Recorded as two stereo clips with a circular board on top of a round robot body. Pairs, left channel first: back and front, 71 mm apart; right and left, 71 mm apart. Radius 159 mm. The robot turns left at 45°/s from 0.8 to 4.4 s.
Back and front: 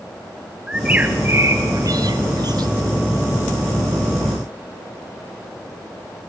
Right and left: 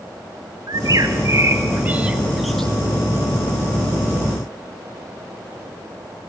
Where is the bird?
75° left, 1.4 m; by 2.7 s 10° right, 1.4 m.